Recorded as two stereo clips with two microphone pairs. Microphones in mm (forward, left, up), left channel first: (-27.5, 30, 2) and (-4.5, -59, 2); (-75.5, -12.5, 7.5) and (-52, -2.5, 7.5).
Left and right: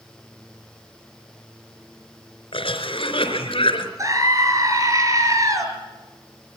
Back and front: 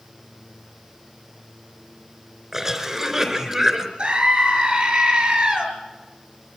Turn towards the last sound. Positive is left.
turn(degrees=-20)